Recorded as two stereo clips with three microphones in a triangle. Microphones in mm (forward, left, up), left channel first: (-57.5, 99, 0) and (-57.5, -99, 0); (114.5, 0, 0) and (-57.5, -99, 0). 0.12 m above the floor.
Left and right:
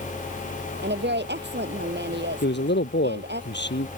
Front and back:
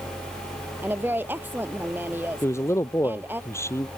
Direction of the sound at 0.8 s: 70° right.